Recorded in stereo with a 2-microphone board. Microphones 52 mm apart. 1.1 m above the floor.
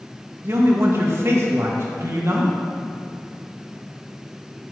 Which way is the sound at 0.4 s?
50° right (ahead or behind).